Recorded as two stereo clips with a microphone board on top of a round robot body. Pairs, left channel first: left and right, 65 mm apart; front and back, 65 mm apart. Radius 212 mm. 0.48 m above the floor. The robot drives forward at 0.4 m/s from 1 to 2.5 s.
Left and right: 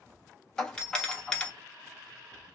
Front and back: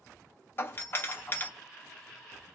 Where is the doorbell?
20° left, 1.8 m; by 1.5 s 25° left, 1.7 m.